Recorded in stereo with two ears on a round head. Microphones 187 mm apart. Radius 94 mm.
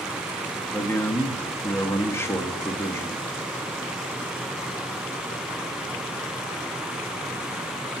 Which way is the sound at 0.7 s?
10° left (ahead or behind).